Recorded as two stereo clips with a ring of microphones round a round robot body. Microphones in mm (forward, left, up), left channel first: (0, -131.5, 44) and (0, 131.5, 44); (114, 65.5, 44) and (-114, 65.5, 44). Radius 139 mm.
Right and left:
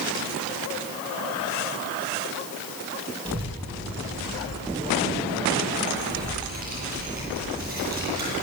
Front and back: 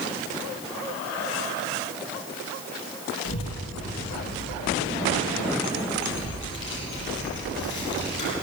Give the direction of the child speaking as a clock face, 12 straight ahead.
11 o'clock.